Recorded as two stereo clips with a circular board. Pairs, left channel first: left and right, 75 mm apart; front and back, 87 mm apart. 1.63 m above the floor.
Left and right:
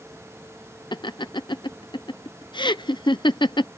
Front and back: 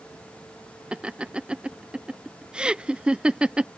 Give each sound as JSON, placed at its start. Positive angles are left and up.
{"t": 0.9, "sound": "laughter", "azimuth_deg": 100}